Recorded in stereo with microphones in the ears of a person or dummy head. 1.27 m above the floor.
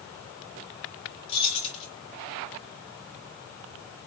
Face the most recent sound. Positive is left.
turn(degrees=35)  # may be behind; listen again after turning